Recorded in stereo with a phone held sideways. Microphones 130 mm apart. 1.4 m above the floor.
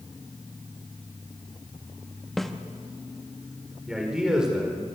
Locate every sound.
2.4 s a snare drum: centre (ahead or behind), 1.3 m
3.9 s a man speaking: 5° right (ahead or behind), 5 m